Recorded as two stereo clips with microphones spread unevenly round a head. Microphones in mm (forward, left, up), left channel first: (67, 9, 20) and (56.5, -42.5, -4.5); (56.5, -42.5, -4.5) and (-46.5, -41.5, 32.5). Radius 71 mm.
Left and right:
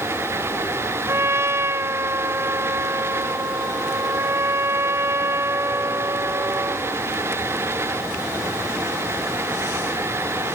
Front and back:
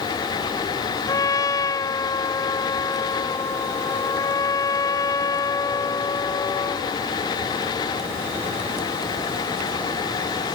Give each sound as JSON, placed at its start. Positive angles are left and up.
{"t": 1.1, "sound": "a trumpet", "azimuth_deg": -60}